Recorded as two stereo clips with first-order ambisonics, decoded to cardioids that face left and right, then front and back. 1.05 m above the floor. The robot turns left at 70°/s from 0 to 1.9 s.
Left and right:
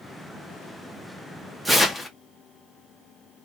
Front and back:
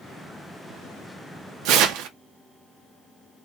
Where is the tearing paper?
Straight behind, 0.6 m; by 2.1 s 165° left, 0.6 m.